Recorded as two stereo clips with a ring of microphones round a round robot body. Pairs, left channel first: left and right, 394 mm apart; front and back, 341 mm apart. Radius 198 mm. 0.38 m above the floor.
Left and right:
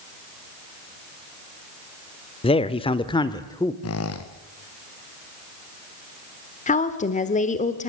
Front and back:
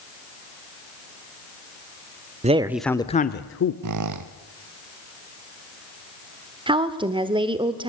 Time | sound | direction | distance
2.4 | a man speaking | 145° left | 0.9 m
3.8 | a squeak | 145° left | 1.6 m
6.7 | a woman speaking | 130° left | 1.2 m